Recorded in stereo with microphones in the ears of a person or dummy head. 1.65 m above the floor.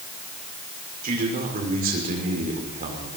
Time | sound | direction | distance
1.0 | a man speaking | 45° right (ahead or behind) | 5.5 m